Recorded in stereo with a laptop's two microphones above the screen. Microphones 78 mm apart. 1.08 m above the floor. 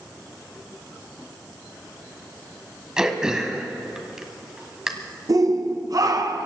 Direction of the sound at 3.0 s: 10° right (ahead or behind).